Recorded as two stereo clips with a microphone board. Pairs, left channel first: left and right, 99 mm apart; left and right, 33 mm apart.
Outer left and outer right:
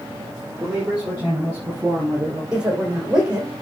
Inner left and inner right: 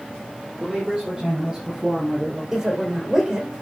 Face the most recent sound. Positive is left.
turn(degrees=-10)  # may be behind; listen again after turning